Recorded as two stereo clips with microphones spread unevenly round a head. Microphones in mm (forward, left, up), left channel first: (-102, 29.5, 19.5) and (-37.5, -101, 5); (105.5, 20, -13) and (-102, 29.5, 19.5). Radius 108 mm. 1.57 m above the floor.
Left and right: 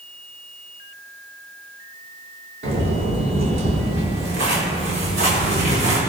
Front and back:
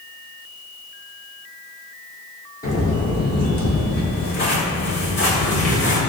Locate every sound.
2.6 s footsteps: 65° right, 5 m; by 6.0 s 45° right, 5.5 m